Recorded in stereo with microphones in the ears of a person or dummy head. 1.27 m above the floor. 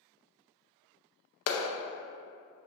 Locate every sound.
1.5 s a clap: 70° left (ahead or behind), 0.6 m